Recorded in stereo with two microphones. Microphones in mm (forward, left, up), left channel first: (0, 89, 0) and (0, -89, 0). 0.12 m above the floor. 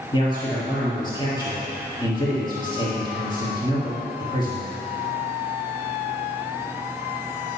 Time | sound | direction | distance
0.1 | a man speaking | 25° left (ahead or behind) | 3 m